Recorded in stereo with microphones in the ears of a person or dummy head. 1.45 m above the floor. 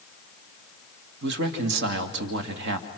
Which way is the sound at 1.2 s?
70° right (ahead or behind).